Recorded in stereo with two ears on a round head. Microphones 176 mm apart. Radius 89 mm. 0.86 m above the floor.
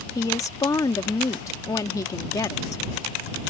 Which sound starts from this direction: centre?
A woman speaking, at 0.1 s.